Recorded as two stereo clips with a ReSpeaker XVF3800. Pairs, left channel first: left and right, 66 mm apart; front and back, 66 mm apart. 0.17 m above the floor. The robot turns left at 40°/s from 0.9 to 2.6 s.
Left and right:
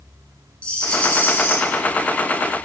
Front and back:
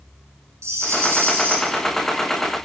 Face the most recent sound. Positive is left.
turn(degrees=90)